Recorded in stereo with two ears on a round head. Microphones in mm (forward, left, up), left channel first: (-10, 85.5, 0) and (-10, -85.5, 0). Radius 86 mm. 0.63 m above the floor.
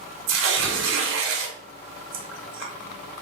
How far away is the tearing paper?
About 0.8 m.